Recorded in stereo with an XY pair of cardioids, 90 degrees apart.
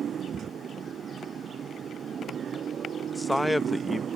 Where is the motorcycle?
65° right; by 4.2 s 60° right.